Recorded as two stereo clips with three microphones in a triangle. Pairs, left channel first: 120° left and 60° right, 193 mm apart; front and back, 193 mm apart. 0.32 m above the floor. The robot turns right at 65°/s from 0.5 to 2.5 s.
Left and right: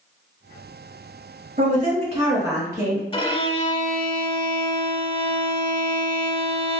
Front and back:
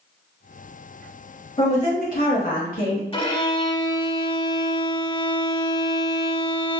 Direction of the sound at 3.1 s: 55° left.